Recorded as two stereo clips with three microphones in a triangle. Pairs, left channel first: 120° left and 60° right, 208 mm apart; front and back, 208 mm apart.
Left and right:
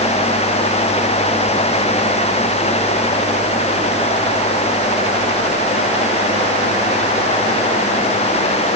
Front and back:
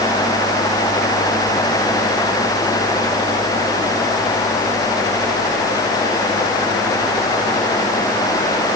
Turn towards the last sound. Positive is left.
No sound to turn to.